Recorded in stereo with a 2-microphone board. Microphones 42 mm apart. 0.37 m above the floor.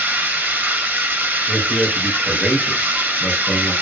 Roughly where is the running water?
Right.